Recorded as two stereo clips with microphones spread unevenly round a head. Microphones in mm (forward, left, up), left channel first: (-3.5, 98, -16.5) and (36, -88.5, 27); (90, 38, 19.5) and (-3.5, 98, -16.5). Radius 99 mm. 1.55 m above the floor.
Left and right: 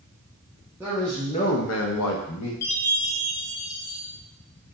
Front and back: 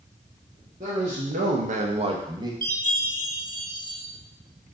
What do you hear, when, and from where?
0.8 s a man speaking: 155° right, 1.0 m; by 2.5 s 90° left, 1.2 m
2.6 s a chime: 100° left, 1.5 m